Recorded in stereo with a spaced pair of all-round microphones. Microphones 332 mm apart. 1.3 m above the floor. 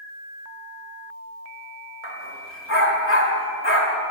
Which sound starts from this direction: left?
A dog barking, at 2.0 s.